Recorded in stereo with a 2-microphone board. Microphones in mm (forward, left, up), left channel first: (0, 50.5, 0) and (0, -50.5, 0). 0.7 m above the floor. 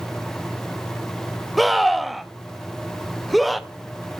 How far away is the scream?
About 0.6 m.